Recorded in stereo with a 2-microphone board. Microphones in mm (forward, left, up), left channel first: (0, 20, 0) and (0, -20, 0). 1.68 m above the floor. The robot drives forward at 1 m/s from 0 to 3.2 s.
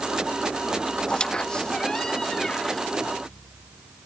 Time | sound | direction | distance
1.1 | a squeak | 25° left (ahead or behind) | ?